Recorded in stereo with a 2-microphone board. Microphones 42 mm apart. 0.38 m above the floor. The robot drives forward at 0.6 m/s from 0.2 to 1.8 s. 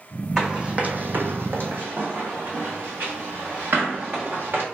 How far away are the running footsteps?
About 1.0 m.